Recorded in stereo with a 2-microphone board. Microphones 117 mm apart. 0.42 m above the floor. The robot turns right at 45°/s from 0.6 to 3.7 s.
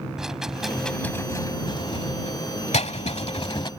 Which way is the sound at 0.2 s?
5° right (ahead or behind).